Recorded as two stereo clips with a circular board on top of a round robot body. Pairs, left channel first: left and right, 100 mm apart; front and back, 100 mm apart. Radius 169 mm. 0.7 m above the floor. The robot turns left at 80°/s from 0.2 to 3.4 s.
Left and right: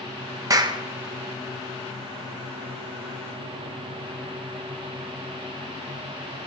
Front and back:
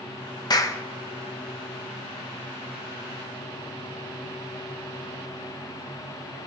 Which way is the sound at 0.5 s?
40° right.